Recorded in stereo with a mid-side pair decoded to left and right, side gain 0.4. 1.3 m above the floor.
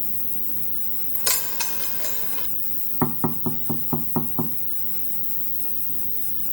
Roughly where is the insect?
Ahead left.